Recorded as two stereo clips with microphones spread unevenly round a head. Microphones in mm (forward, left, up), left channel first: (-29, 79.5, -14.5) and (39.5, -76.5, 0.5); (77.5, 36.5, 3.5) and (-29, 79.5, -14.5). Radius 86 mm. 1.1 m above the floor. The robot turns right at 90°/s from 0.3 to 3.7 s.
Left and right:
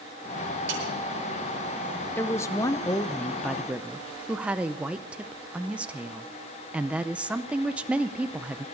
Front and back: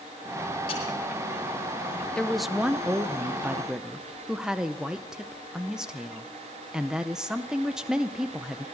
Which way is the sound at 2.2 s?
70° left.